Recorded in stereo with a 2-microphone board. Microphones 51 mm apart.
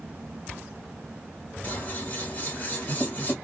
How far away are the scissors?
About 1.3 m.